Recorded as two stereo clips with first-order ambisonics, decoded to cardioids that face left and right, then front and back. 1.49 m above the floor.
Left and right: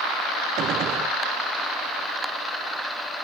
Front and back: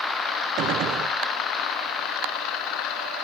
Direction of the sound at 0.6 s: 140° right.